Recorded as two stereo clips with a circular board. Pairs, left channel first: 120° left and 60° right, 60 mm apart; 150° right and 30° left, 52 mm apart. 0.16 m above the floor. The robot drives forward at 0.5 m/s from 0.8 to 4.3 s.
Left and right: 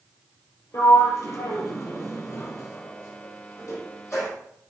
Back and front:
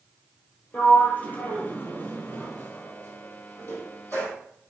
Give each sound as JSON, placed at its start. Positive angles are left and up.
{"t": 0.7, "sound": "a sliding door", "azimuth_deg": 150, "distance_m": 2.5}